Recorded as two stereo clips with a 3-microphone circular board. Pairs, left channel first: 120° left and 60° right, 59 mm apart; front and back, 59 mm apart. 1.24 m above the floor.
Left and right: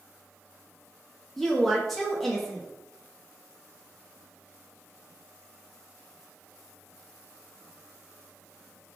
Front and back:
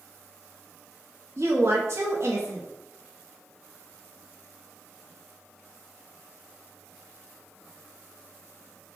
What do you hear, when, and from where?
1.4 s a woman speaking: 155° right, 0.7 m